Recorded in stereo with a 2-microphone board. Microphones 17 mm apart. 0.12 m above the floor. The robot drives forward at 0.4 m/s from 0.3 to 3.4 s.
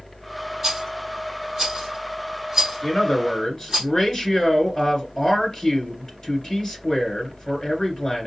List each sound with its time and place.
0.6 s a rattle: 10° right (ahead or behind), 3 m; by 3.8 s 5° right (ahead or behind), 4 m
2.8 s a man speaking: 30° left (ahead or behind), 2 m